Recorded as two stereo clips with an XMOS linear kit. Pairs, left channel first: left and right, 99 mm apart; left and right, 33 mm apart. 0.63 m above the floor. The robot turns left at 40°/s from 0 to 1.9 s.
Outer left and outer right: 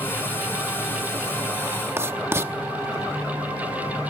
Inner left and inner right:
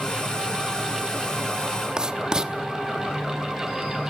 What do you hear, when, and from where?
2.0 s writing: 25° right (ahead or behind), 0.9 m